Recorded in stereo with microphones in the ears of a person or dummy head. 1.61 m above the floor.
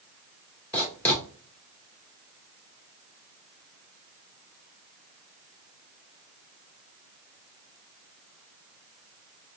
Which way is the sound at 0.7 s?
15° left (ahead or behind).